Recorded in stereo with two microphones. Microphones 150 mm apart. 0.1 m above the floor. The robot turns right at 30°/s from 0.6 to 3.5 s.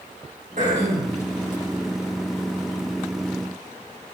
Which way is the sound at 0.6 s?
55° right (ahead or behind).